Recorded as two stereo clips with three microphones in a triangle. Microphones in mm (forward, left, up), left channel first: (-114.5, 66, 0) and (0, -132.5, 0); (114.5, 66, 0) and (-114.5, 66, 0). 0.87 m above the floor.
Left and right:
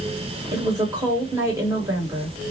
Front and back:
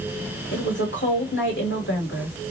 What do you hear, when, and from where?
0.5 s a woman speaking: 15° left, 1.3 m